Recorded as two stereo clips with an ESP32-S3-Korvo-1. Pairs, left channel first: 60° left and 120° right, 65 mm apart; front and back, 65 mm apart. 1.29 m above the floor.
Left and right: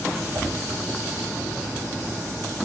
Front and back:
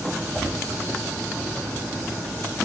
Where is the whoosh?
80° right, 8 m.